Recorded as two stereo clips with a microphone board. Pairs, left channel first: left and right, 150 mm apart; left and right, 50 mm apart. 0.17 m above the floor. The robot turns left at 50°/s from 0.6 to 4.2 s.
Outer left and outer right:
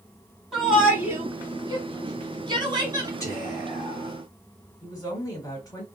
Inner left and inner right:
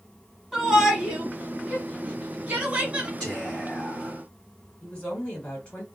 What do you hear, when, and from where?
0.5 s a shout: centre (ahead or behind), 1.1 m; by 3.1 s 25° right (ahead or behind), 1.1 m
3.2 s whispering: 145° left, 1.8 m; by 4.2 s 95° left, 1.8 m
4.8 s a woman speaking: 25° left (ahead or behind), 1.8 m